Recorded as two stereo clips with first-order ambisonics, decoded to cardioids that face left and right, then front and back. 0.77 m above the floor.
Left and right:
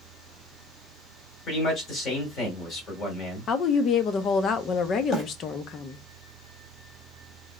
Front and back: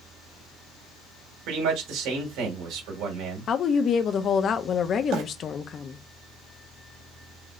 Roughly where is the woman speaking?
Ahead left.